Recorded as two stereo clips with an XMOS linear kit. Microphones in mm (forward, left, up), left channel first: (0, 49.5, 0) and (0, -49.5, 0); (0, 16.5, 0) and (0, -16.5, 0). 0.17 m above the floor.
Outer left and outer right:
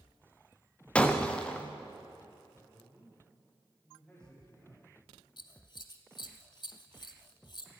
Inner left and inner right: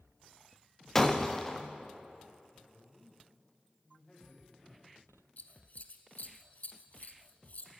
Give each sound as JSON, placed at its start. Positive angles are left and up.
{"t": 0.9, "sound": "breaking glass", "side_deg": 10, "distance_m": 1.6}
{"t": 2.5, "sound": "a woman speaking", "side_deg": 10, "distance_m": 6.0}
{"t": 5.4, "sound": "scissors", "side_deg": 50, "distance_m": 1.2}